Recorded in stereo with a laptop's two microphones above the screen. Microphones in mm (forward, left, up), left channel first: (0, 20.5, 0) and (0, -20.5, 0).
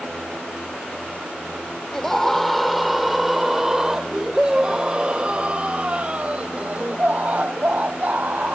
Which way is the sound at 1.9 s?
10° left (ahead or behind).